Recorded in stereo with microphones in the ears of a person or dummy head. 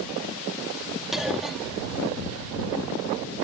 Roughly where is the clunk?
Centre.